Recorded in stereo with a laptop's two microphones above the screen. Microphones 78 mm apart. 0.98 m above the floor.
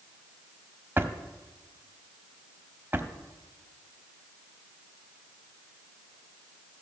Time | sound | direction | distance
1.0 | a drawer | 25° right (ahead or behind) | 1.2 m